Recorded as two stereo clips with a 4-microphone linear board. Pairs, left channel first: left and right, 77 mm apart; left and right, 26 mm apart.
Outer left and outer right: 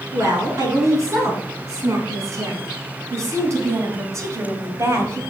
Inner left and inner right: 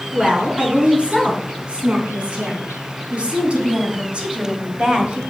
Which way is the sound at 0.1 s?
45° right (ahead or behind).